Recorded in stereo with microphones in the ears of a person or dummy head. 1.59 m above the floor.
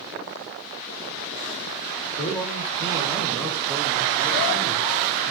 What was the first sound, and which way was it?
A man speaking, 20° left (ahead or behind).